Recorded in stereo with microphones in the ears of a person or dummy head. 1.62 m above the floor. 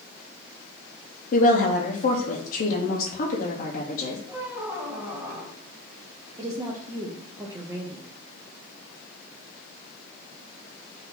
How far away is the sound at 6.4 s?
About 0.6 m.